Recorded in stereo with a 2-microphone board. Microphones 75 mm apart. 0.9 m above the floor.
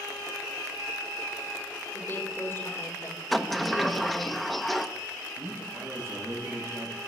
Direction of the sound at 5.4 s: 45° right (ahead or behind).